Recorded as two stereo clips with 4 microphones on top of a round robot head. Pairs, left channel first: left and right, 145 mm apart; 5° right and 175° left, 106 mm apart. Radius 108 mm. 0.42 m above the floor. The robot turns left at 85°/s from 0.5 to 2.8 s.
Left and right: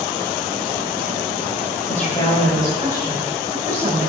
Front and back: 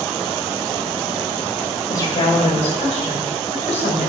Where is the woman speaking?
60° left, 3 m; by 4.1 s 15° right, 3 m.